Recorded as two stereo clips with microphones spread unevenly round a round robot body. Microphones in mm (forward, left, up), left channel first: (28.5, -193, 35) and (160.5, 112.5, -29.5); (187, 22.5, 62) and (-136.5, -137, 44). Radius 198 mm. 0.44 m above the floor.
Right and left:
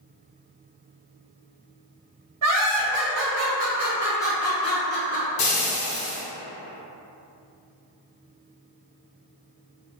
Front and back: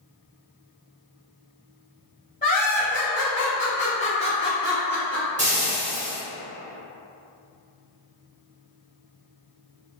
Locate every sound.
2.4 s laughter: 95° left, 1.6 m; by 5.3 s 65° right, 1.0 m
5.4 s frying: 90° right, 1.3 m